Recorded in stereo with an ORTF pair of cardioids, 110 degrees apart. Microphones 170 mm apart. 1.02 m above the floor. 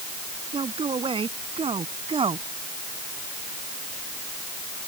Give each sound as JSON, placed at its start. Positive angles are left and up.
{"t": 0.5, "sound": "a man speaking", "azimuth_deg": -30}